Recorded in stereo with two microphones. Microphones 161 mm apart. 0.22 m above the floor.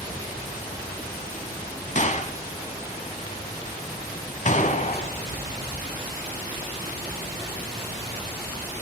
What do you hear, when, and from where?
1.9 s a gunshot: 50° left (ahead or behind), 0.9 m